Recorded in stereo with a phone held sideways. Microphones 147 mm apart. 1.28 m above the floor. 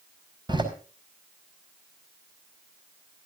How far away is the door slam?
About 4.5 m.